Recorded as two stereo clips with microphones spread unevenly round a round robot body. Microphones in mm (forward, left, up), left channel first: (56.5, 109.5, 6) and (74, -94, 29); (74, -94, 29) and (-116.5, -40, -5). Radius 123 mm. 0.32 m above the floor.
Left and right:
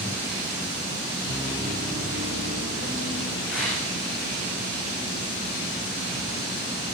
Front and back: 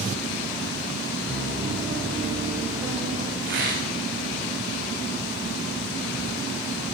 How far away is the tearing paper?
About 9.5 m.